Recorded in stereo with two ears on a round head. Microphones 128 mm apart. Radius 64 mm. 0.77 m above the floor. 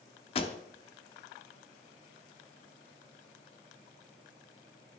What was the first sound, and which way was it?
A pop, 40° left (ahead or behind).